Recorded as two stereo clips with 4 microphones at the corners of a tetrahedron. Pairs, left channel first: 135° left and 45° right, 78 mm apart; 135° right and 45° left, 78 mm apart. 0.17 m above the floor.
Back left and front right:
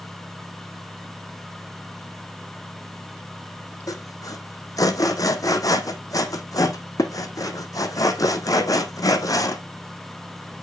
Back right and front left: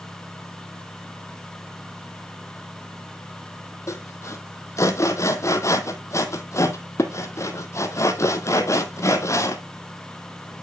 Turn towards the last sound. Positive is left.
turn(degrees=175)